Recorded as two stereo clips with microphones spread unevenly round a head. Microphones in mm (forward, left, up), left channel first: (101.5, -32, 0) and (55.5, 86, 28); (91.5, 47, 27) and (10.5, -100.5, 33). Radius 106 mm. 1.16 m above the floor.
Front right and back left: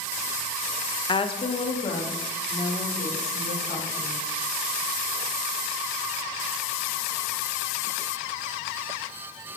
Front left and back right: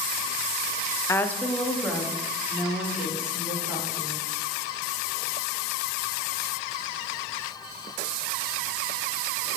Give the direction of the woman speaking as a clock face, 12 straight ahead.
12 o'clock.